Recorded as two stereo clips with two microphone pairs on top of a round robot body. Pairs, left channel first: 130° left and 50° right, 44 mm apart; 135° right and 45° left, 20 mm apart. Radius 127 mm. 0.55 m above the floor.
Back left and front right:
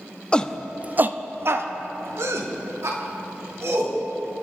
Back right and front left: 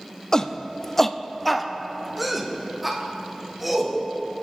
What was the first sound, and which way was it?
A shout, 170° right.